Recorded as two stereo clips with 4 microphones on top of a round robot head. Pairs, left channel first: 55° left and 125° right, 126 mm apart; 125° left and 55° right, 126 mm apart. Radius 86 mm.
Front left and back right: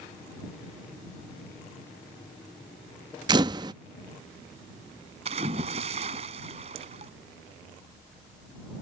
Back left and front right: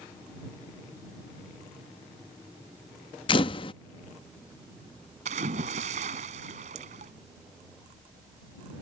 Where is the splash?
85° right.